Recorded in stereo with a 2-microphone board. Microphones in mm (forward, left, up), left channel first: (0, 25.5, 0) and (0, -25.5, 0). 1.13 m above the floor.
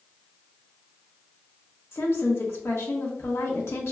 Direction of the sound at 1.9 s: 60° left (ahead or behind).